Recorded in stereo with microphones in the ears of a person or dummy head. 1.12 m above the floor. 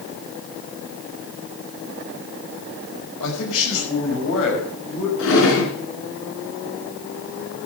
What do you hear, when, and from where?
3.2 s a man speaking: 80° left, 5 m; by 5.1 s 70° left (ahead or behind), 6 m
5.2 s a drawer: 80° left, 3.5 m